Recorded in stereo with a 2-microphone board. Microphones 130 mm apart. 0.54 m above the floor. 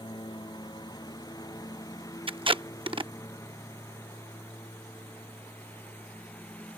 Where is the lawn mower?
35° left (ahead or behind); by 6.8 s 10° left (ahead or behind).